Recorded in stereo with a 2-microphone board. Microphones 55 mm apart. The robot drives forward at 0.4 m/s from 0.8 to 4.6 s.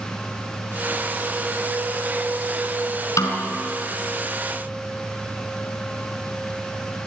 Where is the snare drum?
70° left (ahead or behind), 3.5 m.